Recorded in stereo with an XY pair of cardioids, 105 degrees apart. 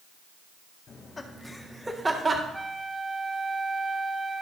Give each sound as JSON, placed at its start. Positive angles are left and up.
{"t": 0.9, "sound": "laughter", "azimuth_deg": 35, "distance_m": 1.9}
{"t": 2.5, "sound": "a flute", "azimuth_deg": -5, "distance_m": 1.0}